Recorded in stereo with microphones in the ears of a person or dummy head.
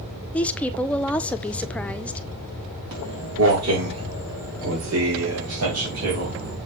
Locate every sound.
0.3 s a woman speaking: centre (ahead or behind), 0.6 m
2.9 s footsteps: 70° right (ahead or behind), 5 m; by 6.6 s 75° right (ahead or behind), 4 m